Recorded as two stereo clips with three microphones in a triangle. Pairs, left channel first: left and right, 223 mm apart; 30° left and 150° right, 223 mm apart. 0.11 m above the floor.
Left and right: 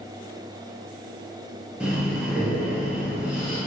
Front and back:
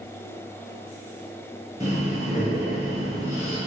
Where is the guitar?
No guitar in this recording.